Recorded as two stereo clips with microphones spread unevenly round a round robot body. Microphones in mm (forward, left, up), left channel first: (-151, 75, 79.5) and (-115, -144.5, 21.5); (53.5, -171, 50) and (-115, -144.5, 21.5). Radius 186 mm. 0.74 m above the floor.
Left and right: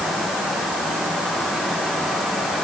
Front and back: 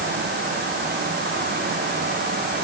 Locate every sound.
Only background noise.